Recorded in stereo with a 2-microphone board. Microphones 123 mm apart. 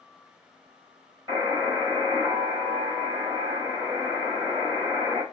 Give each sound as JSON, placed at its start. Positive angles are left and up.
{"t": 1.3, "sound": "a buzzer", "side_deg": -20, "distance_m": 1.3}